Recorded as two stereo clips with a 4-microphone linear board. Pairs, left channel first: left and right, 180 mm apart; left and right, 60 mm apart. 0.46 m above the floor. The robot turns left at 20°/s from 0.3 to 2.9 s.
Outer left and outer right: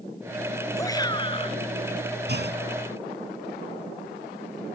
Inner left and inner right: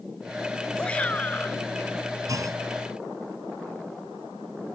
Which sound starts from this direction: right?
A clunk, at 2.3 s.